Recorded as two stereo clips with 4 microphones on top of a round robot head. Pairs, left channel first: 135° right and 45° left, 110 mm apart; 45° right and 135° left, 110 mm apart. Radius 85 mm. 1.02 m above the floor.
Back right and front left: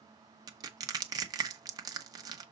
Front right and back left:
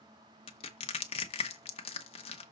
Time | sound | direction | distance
0.5 | crushing | 10° right | 1.1 m